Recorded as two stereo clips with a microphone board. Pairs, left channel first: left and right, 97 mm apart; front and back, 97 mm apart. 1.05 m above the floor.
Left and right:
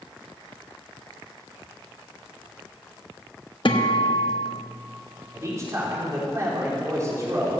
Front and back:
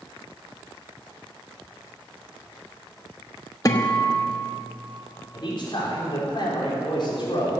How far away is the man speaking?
About 4 m.